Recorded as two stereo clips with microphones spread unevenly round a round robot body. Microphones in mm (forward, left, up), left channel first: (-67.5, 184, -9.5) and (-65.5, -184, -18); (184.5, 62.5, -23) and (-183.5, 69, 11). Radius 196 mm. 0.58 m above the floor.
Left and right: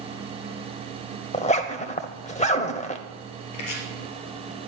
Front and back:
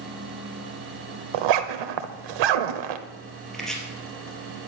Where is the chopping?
90° left, 3 m.